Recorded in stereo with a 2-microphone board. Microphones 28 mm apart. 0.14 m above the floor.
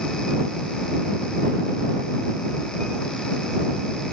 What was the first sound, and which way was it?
Only background noise.